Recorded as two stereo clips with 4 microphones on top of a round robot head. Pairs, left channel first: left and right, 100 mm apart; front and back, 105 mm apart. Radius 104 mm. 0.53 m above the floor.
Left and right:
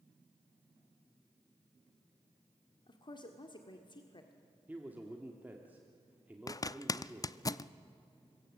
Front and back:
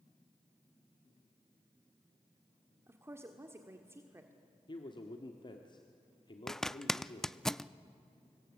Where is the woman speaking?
120° left, 1.6 m.